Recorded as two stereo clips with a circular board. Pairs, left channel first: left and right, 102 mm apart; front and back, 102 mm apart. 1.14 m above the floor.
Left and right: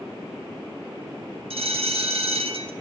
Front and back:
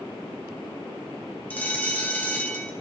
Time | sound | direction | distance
1.5 | a bell | 75° right | 1.1 m